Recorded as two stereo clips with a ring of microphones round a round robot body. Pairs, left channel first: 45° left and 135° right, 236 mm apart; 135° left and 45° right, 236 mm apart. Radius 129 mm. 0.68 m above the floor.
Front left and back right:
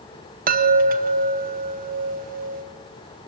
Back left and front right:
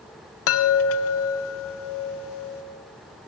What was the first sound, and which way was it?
A chime, 170° left.